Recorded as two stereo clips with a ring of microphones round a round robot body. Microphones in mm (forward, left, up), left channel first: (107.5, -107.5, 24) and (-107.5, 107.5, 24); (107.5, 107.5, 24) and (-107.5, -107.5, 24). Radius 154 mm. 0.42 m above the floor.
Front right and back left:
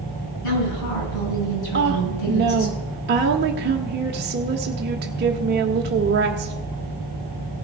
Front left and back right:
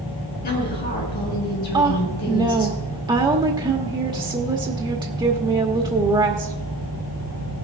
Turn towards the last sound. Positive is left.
turn(degrees=160)